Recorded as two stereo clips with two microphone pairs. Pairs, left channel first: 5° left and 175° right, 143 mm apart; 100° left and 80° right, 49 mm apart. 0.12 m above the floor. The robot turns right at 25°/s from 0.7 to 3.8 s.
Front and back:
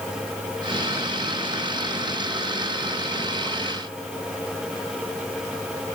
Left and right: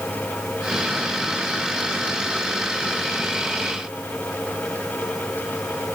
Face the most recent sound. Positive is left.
No sound to turn to.